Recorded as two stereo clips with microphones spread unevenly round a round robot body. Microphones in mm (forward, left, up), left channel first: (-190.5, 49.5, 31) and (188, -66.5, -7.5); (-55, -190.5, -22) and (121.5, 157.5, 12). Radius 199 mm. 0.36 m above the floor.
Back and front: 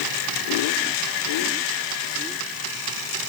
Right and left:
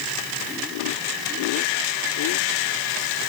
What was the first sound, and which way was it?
Only background noise.